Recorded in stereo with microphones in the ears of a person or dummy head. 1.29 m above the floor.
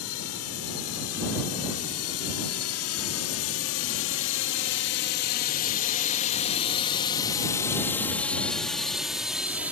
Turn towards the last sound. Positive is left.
turn(degrees=-5)  # may be behind; listen again after turning